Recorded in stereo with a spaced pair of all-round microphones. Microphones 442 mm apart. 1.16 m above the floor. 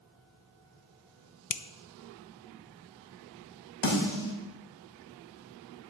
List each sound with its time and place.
1.5 s a finger snap: 45° left (ahead or behind), 0.6 m
3.8 s a snare drum: 75° left (ahead or behind), 3 m